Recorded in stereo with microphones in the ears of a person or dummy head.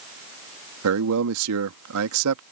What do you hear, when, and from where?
0.8 s a man speaking: 60° right (ahead or behind)